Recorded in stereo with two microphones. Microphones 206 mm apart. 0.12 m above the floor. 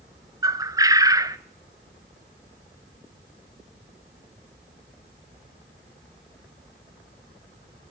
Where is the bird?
20° right (ahead or behind), 0.7 m.